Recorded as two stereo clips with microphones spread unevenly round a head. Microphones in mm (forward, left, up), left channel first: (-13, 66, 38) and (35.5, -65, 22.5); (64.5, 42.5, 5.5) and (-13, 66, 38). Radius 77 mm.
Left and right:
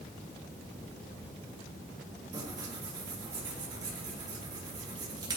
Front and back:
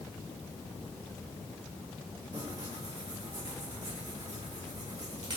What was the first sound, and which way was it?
Tearing paper, 135° right.